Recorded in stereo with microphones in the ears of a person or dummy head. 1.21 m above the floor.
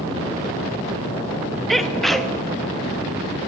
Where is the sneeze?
5° right (ahead or behind), 1.2 m.